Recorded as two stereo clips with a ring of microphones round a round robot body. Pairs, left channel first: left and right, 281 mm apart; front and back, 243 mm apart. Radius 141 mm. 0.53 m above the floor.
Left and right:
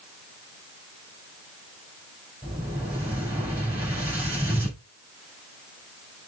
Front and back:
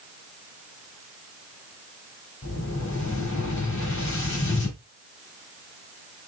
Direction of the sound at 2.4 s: 10° right.